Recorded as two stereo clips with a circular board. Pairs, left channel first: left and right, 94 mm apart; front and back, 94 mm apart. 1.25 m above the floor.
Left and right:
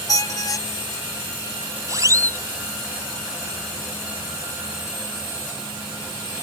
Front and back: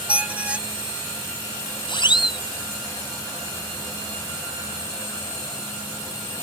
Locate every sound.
0.1 s a squeak: 110° left
1.9 s a siren: 35° right